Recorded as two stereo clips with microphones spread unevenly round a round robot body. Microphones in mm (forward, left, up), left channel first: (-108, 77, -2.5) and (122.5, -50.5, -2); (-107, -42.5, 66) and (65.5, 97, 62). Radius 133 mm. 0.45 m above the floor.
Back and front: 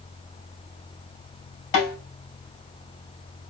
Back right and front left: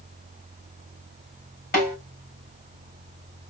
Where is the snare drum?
170° left, 3.5 m.